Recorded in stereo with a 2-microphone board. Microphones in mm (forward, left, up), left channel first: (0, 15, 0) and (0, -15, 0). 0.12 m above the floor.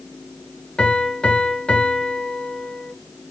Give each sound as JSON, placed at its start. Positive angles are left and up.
{"t": 0.8, "sound": "a piano", "side_deg": 35, "distance_m": 0.8}